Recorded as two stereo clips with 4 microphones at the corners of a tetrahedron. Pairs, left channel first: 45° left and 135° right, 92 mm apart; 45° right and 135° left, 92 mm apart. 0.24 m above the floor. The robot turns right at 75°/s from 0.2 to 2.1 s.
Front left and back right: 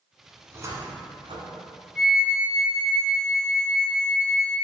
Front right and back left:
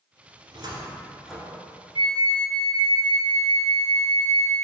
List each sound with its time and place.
0.4 s a cupboard door: 155° left, 1.3 m; by 1.6 s 115° right, 1.3 m
1.9 s a flute: 145° left, 1.1 m; by 4.5 s 155° left, 1.1 m